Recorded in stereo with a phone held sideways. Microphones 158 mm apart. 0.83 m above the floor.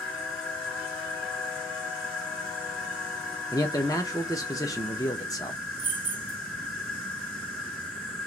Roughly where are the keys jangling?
Left.